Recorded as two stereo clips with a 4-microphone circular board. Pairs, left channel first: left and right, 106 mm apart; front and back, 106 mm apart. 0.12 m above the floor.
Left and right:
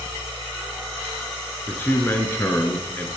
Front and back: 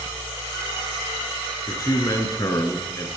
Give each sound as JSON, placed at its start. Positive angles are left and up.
{"t": 1.7, "sound": "a man speaking", "azimuth_deg": 30, "distance_m": 1.3}